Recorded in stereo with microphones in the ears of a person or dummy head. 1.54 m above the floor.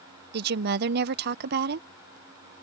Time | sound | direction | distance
0.3 | a woman speaking | 65° right (ahead or behind) | ?